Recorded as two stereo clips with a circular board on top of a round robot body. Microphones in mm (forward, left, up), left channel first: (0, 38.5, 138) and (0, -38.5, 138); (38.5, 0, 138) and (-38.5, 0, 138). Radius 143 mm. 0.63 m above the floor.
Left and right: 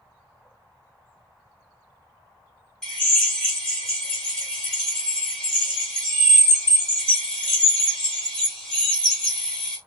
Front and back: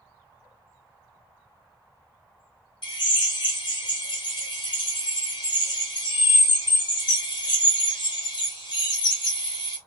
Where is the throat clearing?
No throat clearing in this recording.